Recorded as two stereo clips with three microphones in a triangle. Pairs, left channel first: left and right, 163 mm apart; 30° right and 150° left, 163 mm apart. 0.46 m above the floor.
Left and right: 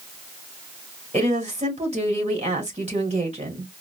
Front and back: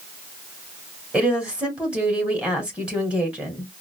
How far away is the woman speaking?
About 1.8 m.